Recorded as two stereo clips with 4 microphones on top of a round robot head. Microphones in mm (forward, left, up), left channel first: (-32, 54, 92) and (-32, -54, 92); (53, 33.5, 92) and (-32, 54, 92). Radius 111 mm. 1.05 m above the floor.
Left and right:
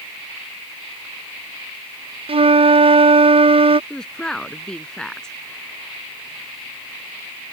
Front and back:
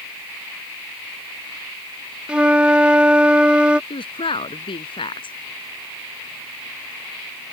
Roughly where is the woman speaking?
Ahead.